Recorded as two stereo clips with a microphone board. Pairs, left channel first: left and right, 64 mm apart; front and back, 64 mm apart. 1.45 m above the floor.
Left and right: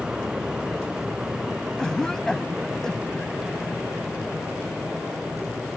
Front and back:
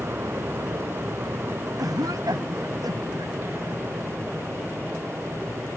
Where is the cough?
170° left.